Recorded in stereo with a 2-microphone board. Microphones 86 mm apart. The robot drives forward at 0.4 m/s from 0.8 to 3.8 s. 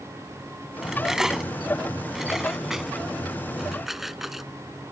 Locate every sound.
0.8 s cutlery clinking: 5° right (ahead or behind)